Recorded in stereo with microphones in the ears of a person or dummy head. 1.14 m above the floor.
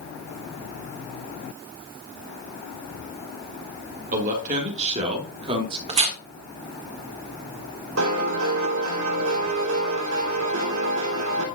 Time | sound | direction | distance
4.1 | a man speaking | 45° right (ahead or behind) | 3 m
5.9 | tearing paper | 30° right (ahead or behind) | 1.7 m
8.0 | a piano | 75° right (ahead or behind) | 2.5 m